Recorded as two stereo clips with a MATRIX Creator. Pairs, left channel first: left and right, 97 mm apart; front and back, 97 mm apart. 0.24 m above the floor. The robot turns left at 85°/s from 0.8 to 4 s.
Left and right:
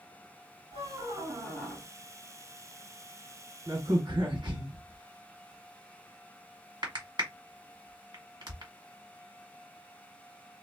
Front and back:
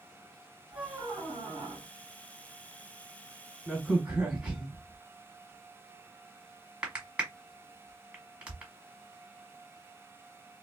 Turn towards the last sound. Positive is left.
turn(degrees=-105)